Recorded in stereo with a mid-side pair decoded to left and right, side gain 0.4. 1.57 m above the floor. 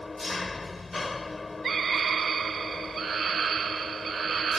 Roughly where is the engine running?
Ahead left.